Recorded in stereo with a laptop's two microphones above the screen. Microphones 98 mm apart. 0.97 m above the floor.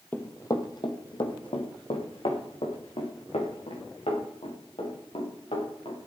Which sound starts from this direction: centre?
Running footsteps, at 0.1 s.